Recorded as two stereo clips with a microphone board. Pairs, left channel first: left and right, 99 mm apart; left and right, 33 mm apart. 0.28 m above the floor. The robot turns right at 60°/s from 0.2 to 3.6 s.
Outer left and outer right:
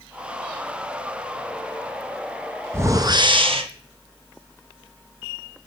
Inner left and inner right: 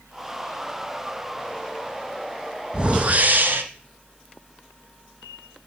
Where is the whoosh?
155° right, 1.0 m; by 3.6 s 105° right, 1.0 m.